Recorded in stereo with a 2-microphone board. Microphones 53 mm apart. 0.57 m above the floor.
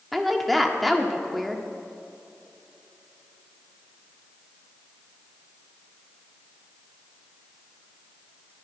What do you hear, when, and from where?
0.1 s a woman speaking: centre (ahead or behind), 1.5 m